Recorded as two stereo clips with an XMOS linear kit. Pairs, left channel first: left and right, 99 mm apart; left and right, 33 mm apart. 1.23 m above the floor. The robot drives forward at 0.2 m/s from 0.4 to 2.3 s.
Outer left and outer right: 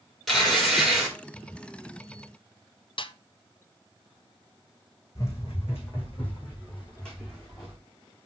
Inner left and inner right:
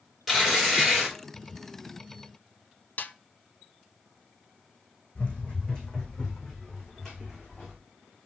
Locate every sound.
0.3 s tearing paper: 5° left (ahead or behind), 3 m
3.0 s a snare drum: 55° left (ahead or behind), 0.5 m
5.2 s running footsteps: 35° left (ahead or behind), 3 m; by 7.8 s 5° left (ahead or behind), 4 m